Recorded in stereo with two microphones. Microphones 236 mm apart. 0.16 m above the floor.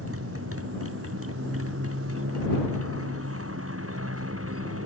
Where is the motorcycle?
75° right (ahead or behind).